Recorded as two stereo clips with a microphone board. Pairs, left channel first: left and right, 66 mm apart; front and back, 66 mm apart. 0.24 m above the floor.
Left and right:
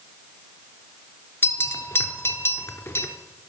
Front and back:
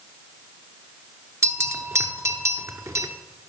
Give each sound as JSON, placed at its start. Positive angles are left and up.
{"t": 1.4, "sound": "a bell", "azimuth_deg": 140, "distance_m": 0.8}